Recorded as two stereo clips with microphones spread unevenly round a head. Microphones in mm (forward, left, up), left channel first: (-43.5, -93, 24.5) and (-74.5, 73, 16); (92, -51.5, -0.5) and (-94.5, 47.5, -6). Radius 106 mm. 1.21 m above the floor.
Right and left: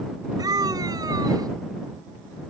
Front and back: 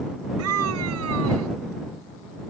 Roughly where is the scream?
Behind.